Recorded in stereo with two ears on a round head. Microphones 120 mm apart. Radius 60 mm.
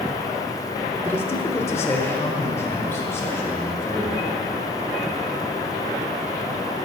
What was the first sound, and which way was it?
A man speaking, 15° left (ahead or behind).